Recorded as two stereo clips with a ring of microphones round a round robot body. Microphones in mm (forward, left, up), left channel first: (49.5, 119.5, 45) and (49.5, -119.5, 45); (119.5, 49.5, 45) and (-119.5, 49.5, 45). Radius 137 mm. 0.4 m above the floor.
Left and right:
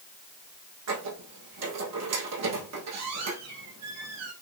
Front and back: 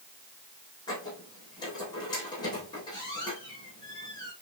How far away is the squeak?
About 4 m.